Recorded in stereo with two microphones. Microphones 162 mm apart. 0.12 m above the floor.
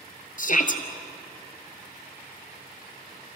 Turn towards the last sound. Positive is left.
turn(degrees=55)  # may be behind; listen again after turning